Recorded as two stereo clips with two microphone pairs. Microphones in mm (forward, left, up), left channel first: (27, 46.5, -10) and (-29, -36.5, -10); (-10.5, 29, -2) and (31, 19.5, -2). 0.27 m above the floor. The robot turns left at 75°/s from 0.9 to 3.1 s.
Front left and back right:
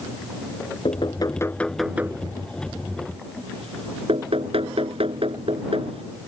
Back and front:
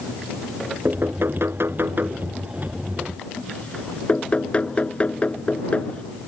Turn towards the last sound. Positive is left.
turn(degrees=-135)